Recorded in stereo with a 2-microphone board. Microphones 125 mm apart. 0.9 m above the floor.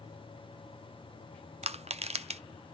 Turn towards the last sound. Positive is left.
turn(degrees=-55)  # may be behind; listen again after turning